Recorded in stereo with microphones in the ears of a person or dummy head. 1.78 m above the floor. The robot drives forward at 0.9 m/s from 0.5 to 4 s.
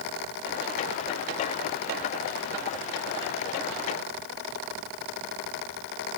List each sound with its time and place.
Only background noise.